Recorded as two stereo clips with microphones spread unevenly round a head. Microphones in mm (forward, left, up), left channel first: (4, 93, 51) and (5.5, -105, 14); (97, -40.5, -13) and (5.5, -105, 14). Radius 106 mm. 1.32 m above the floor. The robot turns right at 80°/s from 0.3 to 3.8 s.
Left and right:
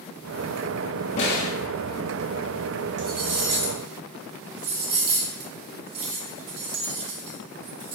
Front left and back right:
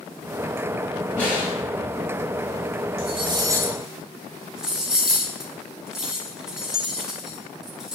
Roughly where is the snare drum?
Behind left.